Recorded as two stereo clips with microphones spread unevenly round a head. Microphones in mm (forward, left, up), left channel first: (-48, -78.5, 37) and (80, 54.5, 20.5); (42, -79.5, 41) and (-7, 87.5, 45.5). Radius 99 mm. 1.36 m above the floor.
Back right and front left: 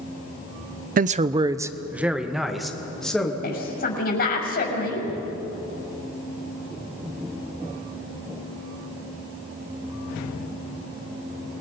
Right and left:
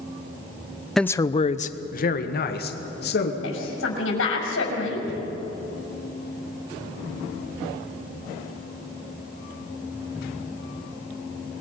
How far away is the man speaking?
About 0.6 m.